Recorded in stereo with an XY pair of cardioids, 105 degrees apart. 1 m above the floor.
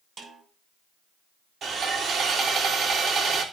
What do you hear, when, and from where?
0.2 s a snare drum: 45° right, 5 m
1.6 s sawing: 50° right, 3 m